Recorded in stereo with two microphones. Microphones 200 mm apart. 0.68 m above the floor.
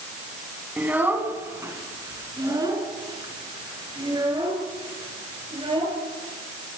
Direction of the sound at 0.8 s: 10° right (ahead or behind).